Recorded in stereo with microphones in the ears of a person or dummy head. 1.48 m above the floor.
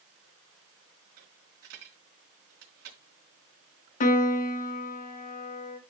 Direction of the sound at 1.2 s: 70° right (ahead or behind).